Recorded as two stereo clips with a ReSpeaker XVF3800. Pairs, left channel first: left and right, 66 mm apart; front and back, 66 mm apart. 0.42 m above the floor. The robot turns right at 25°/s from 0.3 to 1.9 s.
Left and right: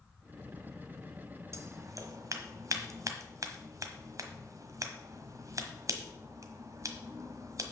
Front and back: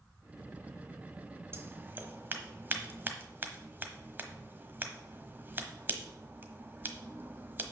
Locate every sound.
1.5 s scissors: 130° right, 1.1 m; by 7.7 s 120° right, 1.1 m